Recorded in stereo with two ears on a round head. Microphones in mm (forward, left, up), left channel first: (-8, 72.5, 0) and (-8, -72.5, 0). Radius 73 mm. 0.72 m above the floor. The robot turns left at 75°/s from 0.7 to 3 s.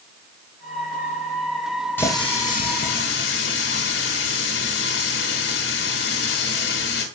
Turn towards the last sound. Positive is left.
turn(degrees=90)